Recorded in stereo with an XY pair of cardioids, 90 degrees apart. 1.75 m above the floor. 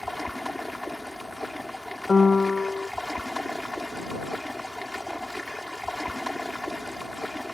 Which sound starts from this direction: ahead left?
A piano, at 2.1 s.